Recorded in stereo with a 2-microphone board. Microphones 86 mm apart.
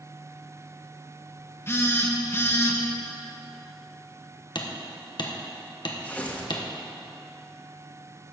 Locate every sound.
1.7 s a phone buzzing: 30° left (ahead or behind), 1.2 m
4.5 s hammering: 60° left (ahead or behind), 1.2 m
6.0 s tearing paper: 20° left (ahead or behind), 1.3 m